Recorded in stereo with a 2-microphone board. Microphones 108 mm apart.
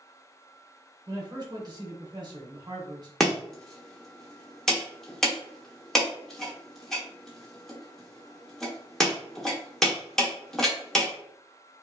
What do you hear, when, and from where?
1.1 s a man speaking: 40° right (ahead or behind), 0.9 m
3.2 s chopping: 5° left (ahead or behind), 0.7 m